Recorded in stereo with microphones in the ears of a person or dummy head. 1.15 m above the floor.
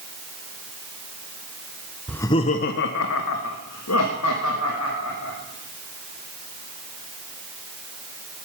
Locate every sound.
2.1 s laughter: centre (ahead or behind), 0.6 m; by 5.3 s 80° left, 2.5 m